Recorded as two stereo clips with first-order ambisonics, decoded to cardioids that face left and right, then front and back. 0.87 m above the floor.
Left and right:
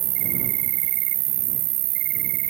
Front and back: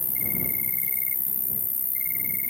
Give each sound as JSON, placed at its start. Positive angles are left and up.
{"t": 0.0, "sound": "an insect", "azimuth_deg": -85}